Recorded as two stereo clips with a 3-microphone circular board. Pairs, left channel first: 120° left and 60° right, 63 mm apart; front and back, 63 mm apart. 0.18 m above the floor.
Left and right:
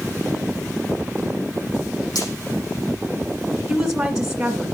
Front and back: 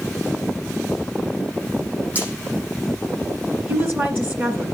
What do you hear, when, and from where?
2.1 s frying: 115° left, 7 m
3.7 s a woman speaking: 135° right, 2 m